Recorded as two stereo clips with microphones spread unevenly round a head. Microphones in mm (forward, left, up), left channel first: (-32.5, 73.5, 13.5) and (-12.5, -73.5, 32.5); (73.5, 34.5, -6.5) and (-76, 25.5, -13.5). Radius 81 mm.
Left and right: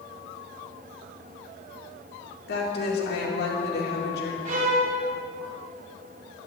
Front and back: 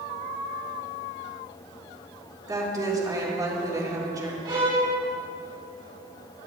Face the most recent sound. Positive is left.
turn(degrees=-110)